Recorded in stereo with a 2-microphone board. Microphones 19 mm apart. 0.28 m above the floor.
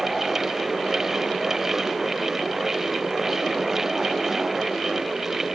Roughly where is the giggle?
I don't hear a giggle.